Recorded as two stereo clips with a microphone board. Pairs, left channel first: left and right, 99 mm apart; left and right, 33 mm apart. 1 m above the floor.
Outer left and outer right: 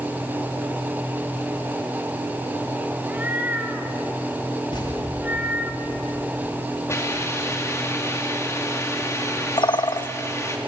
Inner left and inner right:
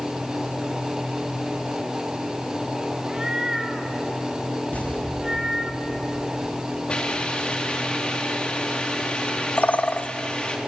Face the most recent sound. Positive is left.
turn(degrees=55)  # may be behind; listen again after turning